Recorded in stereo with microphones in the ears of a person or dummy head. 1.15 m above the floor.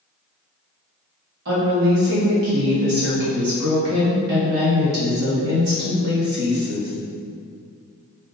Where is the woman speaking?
60° right (ahead or behind), 1.5 m.